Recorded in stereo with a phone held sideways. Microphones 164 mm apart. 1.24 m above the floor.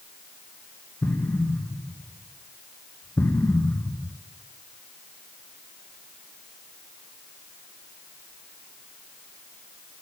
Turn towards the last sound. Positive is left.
turn(degrees=10)  # may be behind; listen again after turning